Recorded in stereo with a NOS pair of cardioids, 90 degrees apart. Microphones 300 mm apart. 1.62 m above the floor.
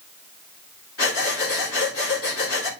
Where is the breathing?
50° left, 3.5 m.